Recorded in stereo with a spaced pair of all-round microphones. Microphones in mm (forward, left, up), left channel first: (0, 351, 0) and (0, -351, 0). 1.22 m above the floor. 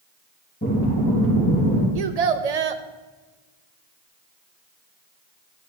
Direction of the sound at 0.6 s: 20° left (ahead or behind).